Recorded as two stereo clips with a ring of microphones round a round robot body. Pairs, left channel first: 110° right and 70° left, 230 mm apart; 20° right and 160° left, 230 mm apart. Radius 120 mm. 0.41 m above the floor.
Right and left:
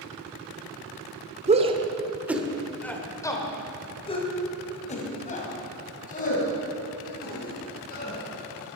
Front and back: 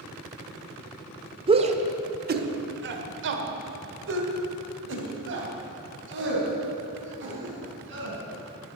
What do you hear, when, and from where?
1.5 s a shout: 105° left, 1.1 m; by 8.2 s 165° right, 4.5 m